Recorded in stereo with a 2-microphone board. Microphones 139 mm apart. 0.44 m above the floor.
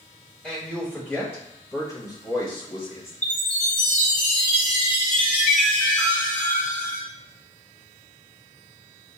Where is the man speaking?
5° left (ahead or behind), 2 m; by 3.1 s 45° left (ahead or behind), 1.4 m.